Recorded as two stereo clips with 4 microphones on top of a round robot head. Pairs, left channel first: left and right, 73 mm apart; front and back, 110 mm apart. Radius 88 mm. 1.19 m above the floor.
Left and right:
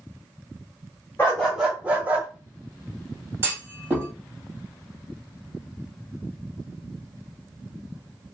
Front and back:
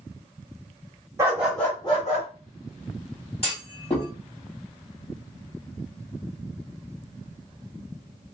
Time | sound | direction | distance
1.2 | a dog barking | 150° left | 0.6 m
3.4 | a clunk | 45° right | 1.3 m